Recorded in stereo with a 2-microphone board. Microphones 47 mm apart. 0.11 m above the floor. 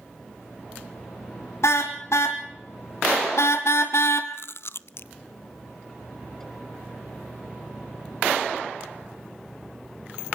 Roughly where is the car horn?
Left.